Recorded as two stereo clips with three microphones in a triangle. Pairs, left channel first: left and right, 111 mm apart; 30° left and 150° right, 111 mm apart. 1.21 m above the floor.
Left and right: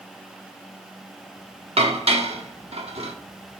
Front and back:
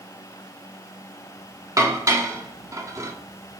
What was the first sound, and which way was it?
Dishes clattering, 90° right.